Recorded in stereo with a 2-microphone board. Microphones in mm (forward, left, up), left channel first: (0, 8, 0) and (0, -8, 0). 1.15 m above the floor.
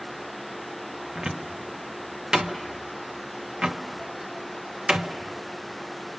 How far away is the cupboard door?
About 0.9 m.